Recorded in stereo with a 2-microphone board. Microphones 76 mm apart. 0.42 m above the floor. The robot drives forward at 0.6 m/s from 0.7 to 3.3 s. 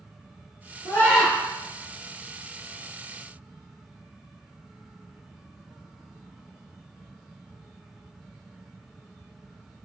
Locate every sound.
0.8 s a scream: 40° left (ahead or behind), 5.5 m